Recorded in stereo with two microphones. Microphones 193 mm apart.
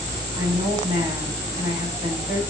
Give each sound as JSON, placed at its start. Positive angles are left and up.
{"t": 0.4, "sound": "a woman speaking", "side_deg": -25, "distance_m": 3.0}